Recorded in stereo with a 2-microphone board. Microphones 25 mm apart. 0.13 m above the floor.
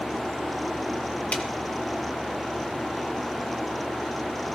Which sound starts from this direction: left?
A snare drum, at 1.3 s.